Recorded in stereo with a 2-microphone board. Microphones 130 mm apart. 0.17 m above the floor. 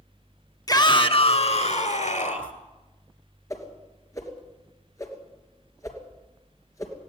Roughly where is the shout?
Left.